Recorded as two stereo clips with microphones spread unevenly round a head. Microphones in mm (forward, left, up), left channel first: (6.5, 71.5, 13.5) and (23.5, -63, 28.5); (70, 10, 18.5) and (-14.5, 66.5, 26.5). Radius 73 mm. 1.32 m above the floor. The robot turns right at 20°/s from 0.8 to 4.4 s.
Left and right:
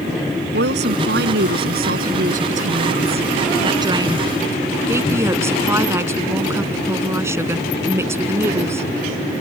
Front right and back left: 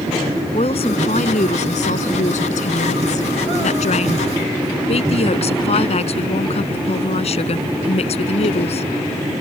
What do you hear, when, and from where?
0.5 s a woman speaking: 85° right; by 8.9 s 10° right